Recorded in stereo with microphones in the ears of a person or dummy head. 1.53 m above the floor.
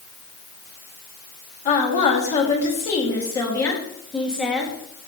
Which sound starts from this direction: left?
A woman speaking, at 1.6 s.